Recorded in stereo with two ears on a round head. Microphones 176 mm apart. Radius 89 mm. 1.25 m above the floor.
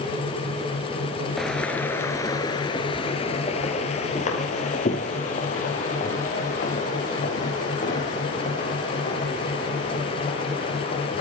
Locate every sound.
1.4 s footsteps: centre (ahead or behind), 1.2 m; by 11.2 s 45° left (ahead or behind), 5.5 m